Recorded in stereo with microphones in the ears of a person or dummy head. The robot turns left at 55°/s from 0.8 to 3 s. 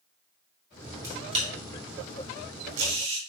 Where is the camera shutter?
15° right (ahead or behind), 3 m; by 3.2 s 55° right (ahead or behind), 3 m.